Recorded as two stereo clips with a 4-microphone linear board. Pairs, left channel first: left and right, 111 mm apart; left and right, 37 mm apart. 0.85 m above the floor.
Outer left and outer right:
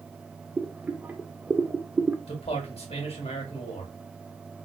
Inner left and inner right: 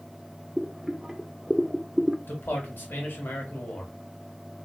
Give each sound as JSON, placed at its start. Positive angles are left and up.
{"t": 0.6, "sound": "boiling", "side_deg": -15, "distance_m": 0.5}
{"t": 2.3, "sound": "a man speaking", "side_deg": 60, "distance_m": 1.5}